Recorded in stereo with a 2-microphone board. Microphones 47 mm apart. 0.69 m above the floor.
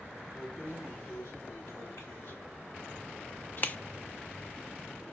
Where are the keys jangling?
80° left, 5.5 m; by 3.8 s 25° left (ahead or behind), 0.6 m.